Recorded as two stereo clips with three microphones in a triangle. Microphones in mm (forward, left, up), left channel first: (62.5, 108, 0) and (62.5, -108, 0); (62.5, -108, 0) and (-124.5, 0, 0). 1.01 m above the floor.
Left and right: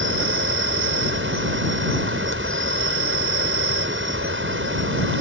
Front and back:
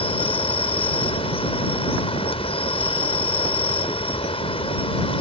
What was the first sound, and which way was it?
An insect, 90° right.